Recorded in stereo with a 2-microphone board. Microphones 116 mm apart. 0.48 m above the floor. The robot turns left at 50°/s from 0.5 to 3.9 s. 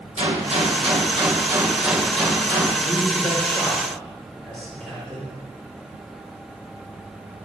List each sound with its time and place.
0.2 s a gunshot: 100° right, 2.5 m; by 2.7 s 145° left, 2.5 m
2.8 s a man speaking: 60° left (ahead or behind), 5.5 m; by 5.3 s 10° left (ahead or behind), 5.5 m